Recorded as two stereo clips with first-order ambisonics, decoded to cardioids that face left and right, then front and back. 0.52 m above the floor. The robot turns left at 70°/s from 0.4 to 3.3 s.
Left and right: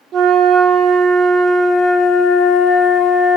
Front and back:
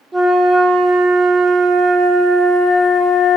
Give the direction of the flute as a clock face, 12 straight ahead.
4 o'clock.